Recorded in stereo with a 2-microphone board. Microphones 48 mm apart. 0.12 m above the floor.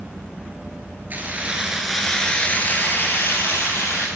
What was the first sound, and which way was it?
Keys jangling, 40° right (ahead or behind).